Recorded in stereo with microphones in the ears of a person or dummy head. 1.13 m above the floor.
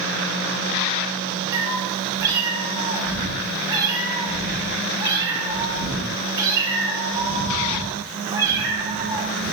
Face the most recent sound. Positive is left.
turn(degrees=-20)  # may be behind; listen again after turning